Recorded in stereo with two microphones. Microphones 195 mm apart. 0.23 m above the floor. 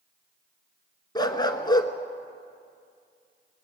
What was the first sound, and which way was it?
A dog barking, 20° left (ahead or behind).